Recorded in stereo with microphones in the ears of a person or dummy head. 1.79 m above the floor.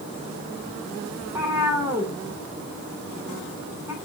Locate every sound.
1.2 s a cat meowing: 10° right (ahead or behind), 3 m